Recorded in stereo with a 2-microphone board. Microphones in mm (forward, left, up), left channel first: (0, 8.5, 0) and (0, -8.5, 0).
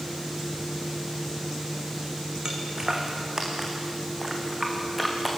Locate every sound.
2.5 s footsteps: 45° right (ahead or behind), 4 m; by 5.3 s 10° right (ahead or behind), 5.5 m